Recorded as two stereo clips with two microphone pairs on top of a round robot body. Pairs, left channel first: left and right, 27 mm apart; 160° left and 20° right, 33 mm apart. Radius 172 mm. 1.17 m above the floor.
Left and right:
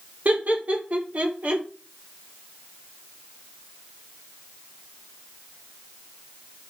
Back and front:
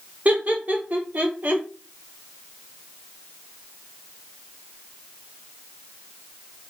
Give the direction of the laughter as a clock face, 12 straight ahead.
2 o'clock.